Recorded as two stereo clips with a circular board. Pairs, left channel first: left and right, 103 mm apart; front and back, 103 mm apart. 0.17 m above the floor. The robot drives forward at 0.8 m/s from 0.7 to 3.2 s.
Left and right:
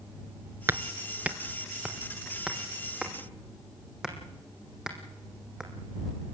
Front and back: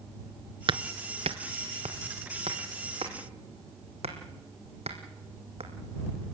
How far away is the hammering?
About 0.7 m.